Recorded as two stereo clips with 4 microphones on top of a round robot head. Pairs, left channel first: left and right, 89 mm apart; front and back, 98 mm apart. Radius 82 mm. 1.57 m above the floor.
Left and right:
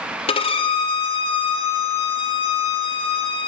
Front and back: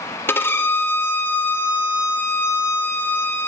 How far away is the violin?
About 0.9 m.